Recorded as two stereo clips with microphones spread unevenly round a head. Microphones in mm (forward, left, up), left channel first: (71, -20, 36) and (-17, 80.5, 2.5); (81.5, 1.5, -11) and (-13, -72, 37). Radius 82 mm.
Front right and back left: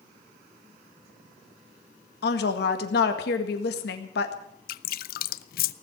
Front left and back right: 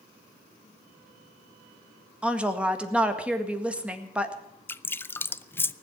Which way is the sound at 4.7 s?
40° right.